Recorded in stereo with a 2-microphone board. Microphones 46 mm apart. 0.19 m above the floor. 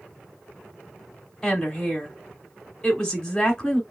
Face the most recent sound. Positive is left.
turn(degrees=10)  # may be behind; listen again after turning